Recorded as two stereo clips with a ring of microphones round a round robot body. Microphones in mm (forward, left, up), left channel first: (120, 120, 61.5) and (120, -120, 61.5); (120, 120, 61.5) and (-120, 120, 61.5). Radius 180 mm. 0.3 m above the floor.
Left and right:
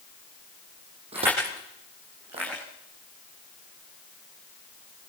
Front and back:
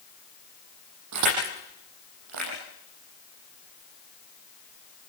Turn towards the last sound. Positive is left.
turn(degrees=-165)